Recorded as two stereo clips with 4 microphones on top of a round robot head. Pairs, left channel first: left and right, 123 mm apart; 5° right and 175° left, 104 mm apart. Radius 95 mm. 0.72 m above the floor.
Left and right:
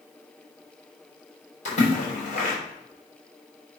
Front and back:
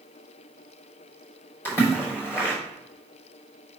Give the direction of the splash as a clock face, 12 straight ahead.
10 o'clock.